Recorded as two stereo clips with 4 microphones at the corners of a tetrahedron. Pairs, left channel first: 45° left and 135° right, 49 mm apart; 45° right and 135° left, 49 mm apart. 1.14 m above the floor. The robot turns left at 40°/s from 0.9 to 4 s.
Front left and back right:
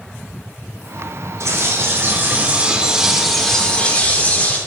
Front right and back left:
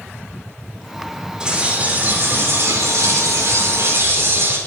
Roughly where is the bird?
Behind right.